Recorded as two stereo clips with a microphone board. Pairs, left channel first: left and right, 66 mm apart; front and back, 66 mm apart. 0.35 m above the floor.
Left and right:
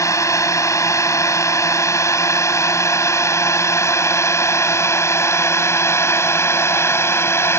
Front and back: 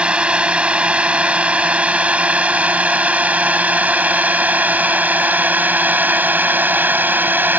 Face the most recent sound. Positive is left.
turn(degrees=125)